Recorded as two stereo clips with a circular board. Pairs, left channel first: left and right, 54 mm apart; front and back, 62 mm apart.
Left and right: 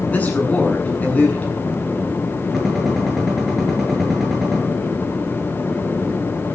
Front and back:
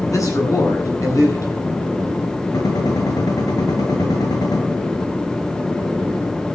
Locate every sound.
0.1 s a man speaking: 30° left, 9 m
2.5 s a gunshot: 5° right, 8 m